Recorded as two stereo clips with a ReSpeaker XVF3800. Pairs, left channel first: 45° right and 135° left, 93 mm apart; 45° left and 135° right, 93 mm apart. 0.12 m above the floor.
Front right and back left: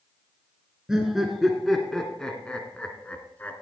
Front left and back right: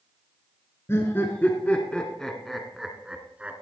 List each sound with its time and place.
0.9 s laughter: 55° left, 1.7 m; by 3.6 s 85° right, 1.7 m